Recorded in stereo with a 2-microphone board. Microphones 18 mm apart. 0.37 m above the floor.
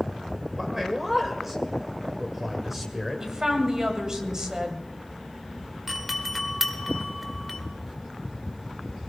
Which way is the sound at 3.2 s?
35° right (ahead or behind).